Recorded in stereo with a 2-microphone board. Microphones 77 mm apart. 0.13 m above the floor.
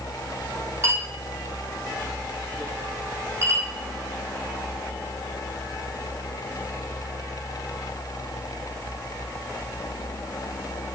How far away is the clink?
About 4 m.